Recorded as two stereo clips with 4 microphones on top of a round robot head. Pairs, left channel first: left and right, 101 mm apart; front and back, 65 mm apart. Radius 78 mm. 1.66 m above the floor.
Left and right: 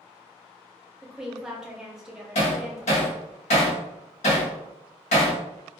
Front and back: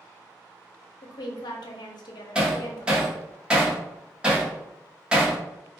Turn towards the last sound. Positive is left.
turn(degrees=100)